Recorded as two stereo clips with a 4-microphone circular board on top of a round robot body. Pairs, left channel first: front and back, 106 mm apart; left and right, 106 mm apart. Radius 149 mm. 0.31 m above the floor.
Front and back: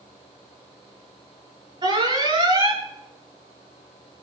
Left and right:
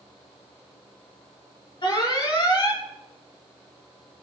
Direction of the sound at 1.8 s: 130° left.